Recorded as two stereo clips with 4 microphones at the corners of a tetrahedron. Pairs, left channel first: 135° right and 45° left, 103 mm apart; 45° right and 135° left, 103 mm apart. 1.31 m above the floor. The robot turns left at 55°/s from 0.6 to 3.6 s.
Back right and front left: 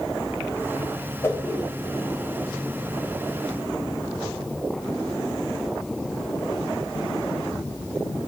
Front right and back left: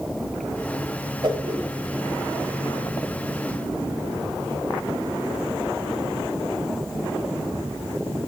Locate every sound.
1.2 s a whoosh: 170° left, 1.7 m; by 1.6 s 145° left, 1.7 m